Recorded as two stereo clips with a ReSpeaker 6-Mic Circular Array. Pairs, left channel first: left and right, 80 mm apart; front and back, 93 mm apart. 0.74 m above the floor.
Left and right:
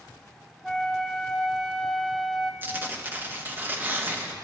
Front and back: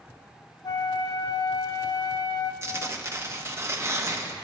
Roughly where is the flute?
Ahead.